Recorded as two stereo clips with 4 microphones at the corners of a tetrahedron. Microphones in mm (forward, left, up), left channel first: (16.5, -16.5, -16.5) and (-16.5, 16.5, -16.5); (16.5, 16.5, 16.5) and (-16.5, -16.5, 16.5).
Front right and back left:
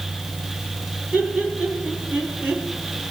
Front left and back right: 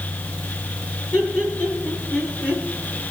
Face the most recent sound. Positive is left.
turn(degrees=80)